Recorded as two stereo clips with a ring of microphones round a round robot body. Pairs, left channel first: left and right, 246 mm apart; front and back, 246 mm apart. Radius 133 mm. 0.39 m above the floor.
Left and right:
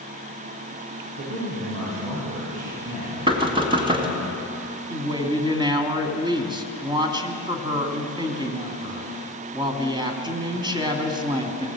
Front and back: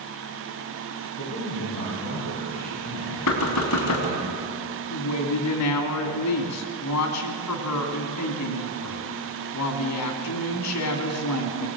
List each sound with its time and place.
1.2 s a man speaking: 70° right, 9 m
3.3 s knocking: 20° right, 2.5 m
4.9 s a woman speaking: 20° right, 2.5 m